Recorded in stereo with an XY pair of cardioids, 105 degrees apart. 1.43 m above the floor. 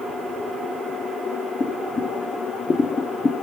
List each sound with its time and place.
1.6 s boiling: 30° left, 0.5 m